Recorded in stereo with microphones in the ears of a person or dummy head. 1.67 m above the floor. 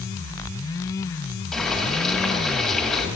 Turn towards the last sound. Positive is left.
turn(degrees=0)  # may be behind; listen again after turning